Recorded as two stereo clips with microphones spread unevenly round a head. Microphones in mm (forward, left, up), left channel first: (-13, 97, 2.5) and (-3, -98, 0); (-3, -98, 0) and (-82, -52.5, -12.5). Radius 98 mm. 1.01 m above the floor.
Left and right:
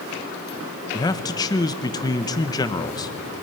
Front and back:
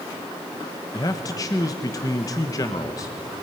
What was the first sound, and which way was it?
A man speaking, 30° left.